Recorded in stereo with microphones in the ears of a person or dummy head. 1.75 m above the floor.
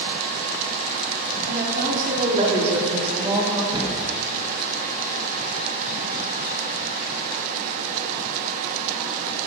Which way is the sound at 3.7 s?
30° right (ahead or behind).